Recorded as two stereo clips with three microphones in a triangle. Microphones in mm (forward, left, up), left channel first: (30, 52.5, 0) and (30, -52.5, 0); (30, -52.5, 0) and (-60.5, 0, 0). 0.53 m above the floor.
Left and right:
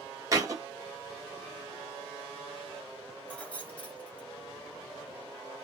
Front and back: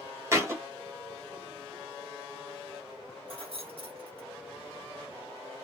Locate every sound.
0.3 s a thud: 145° right, 1.2 m
3.3 s keys jangling: 165° left, 1.2 m